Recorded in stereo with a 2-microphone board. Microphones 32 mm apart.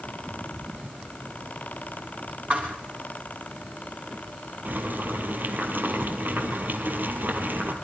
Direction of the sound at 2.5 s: 55° right (ahead or behind).